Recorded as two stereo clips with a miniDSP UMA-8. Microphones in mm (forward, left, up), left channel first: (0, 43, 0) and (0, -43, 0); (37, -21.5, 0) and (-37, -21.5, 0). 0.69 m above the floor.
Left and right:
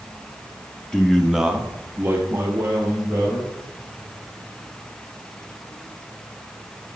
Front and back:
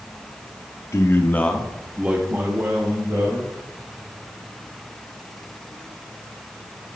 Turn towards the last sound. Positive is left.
turn(degrees=-145)